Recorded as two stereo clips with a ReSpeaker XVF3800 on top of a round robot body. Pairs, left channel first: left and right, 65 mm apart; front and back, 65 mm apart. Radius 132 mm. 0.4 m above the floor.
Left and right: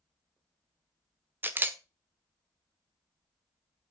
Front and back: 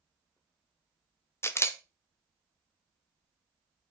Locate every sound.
1.4 s a camera shutter: 40° right, 1.3 m